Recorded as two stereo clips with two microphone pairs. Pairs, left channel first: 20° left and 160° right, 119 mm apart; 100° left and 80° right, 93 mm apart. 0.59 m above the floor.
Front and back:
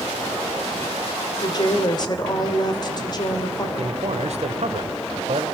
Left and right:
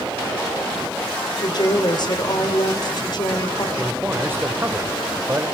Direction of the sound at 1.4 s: 65° left.